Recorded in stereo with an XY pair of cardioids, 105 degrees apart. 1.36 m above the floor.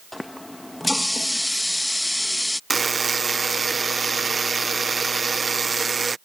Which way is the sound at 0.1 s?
10° left.